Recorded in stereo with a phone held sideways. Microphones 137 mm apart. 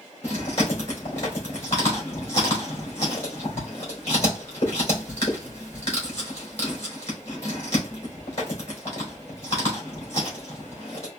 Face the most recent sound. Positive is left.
turn(degrees=55)  # may be behind; listen again after turning